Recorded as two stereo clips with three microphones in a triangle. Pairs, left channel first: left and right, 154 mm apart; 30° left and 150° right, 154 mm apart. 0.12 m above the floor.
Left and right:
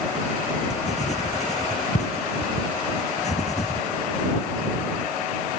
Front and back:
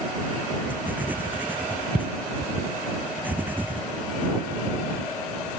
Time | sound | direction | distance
0.7 | writing | 130° left | ?